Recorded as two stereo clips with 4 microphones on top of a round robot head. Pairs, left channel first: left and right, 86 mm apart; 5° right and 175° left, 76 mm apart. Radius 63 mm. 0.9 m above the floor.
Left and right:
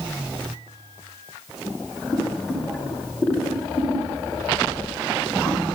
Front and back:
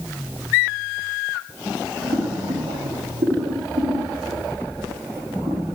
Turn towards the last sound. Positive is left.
turn(degrees=160)